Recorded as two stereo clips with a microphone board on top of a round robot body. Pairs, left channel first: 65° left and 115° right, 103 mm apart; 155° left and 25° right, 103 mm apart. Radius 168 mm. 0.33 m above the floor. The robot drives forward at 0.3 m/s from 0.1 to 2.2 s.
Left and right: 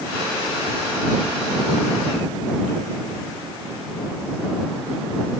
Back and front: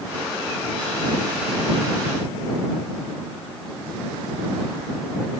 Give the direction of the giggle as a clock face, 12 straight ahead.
No giggle in this recording.